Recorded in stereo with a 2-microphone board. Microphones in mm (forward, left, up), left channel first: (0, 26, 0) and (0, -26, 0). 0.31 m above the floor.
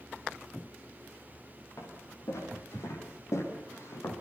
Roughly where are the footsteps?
Left.